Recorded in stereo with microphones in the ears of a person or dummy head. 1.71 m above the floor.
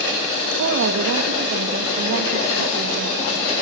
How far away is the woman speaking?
About 1.9 m.